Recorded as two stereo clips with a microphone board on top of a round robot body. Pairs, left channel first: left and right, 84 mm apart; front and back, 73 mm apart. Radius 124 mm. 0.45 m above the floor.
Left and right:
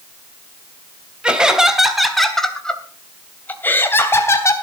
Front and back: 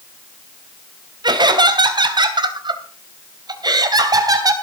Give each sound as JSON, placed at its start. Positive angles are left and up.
{"t": 1.2, "sound": "laughter", "azimuth_deg": -170, "distance_m": 3.0}